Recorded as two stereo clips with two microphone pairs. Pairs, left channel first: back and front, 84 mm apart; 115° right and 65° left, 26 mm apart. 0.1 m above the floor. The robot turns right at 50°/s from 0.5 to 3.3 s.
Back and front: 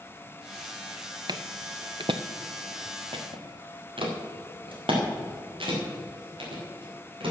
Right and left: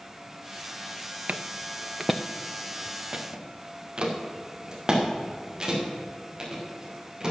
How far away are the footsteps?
About 0.7 m.